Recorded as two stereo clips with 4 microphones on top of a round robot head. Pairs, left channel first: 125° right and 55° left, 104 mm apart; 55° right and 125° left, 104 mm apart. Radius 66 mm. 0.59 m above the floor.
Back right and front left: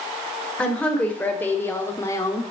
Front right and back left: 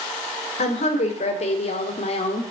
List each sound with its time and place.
0.6 s a woman speaking: 45° right, 2.5 m; by 2.4 s 70° right, 1.4 m